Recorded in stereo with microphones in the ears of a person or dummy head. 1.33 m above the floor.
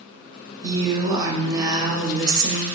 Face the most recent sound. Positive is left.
turn(degrees=-20)  # may be behind; listen again after turning